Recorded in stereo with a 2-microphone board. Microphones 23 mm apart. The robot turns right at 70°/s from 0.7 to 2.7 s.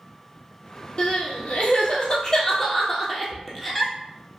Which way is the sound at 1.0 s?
45° left (ahead or behind).